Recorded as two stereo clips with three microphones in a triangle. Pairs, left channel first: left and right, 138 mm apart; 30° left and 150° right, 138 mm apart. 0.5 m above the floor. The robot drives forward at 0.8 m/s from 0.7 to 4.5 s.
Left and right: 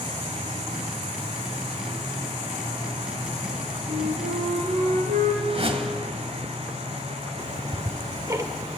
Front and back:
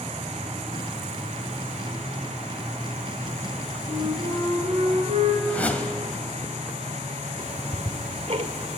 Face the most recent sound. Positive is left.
turn(degrees=-150)